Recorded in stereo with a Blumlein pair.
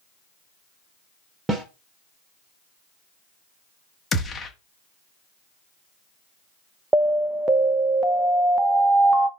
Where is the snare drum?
10° right, 1.6 m.